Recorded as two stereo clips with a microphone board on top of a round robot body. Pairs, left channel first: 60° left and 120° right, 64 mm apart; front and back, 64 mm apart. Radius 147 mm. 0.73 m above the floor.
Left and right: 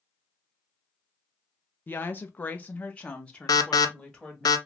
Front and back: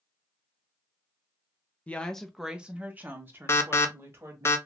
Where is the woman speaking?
40° left, 0.7 m; by 4.5 s 140° left, 1.7 m.